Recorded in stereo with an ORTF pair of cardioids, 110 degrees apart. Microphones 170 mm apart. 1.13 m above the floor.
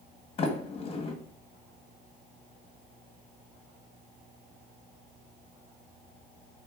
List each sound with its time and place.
0.4 s a sliding door: 35° left, 1.6 m